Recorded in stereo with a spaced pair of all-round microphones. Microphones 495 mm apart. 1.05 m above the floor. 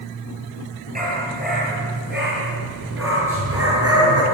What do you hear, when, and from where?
0.9 s a dog barking: 15° right (ahead or behind), 9.5 m; by 4.2 s 30° right (ahead or behind), 8 m